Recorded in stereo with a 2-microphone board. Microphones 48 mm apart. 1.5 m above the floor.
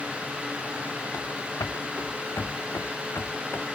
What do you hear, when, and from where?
1.1 s running footsteps: 75° left (ahead or behind); by 3.6 s 55° left (ahead or behind)